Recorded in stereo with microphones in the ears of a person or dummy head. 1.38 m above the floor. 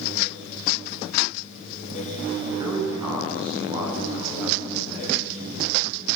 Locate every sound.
2.5 s a man speaking: 20° right (ahead or behind), 8 m; by 5.6 s 30° right (ahead or behind), 12 m